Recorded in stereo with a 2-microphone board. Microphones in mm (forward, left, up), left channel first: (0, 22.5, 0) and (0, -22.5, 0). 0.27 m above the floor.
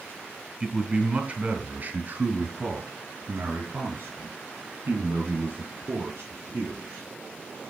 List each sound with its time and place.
0.6 s a man speaking: 15° right (ahead or behind), 1.7 m; by 7.0 s 60° right (ahead or behind), 4.5 m